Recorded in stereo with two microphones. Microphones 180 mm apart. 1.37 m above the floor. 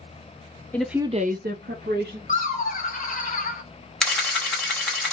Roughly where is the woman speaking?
Centre.